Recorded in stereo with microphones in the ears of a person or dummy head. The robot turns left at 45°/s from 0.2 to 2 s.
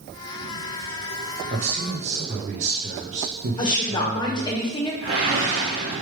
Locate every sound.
1.5 s a man speaking: 35° right (ahead or behind), 0.6 m
3.6 s a woman speaking: 25° left (ahead or behind), 0.9 m
5.0 s a whoosh: 50° right (ahead or behind), 1.1 m